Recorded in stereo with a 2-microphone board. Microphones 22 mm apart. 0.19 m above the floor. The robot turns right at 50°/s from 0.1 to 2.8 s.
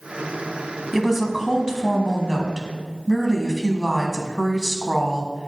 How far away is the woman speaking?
About 1.2 m.